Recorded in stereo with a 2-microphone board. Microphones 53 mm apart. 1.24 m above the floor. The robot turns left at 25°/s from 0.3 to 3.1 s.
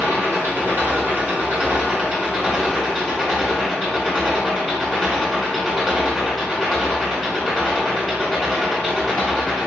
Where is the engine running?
120° right, 1.7 m; by 9.7 s 170° left, 1.7 m.